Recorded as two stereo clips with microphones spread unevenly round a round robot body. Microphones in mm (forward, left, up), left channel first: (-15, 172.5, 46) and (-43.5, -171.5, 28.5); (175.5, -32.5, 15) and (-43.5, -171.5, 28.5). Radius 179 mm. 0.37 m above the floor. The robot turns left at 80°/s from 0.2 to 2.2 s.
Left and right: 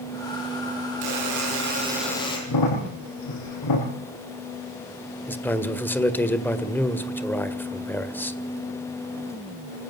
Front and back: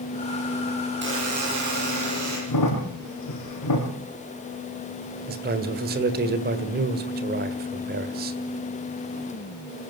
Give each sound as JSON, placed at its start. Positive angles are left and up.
{"t": 1.0, "sound": "a buzzer", "azimuth_deg": -100, "distance_m": 10.0}
{"t": 2.5, "sound": "a crack", "azimuth_deg": 50, "distance_m": 6.5}
{"t": 5.3, "sound": "a man speaking", "azimuth_deg": 170, "distance_m": 1.8}